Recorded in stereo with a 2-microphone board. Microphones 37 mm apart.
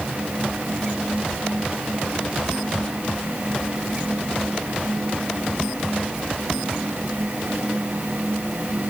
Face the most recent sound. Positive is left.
No sound to turn to.